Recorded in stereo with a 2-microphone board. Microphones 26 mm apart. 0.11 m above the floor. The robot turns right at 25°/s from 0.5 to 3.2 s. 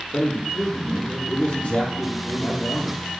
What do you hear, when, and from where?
0.1 s a man speaking: 65° left, 4 m; by 3.0 s 130° left, 4 m